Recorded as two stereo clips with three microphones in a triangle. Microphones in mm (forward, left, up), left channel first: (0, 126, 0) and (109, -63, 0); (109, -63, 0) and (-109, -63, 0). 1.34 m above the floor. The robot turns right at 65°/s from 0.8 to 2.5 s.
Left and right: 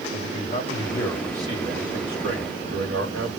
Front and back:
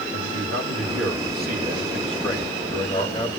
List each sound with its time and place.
0.1 s a man speaking: 175° right, 2 m; by 3.3 s 60° right, 2 m